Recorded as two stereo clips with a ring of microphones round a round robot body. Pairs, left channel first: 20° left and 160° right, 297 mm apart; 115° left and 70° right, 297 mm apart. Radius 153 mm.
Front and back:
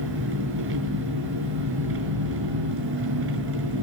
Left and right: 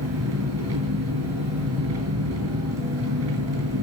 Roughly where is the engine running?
Right.